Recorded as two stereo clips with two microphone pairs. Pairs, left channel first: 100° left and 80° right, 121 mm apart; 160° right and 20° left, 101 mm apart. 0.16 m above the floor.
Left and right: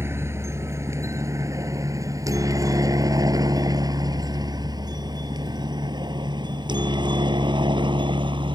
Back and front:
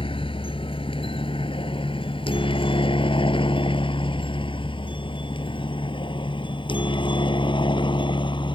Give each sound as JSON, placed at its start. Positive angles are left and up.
{"t": 0.0, "sound": "a helicopter", "azimuth_deg": -150}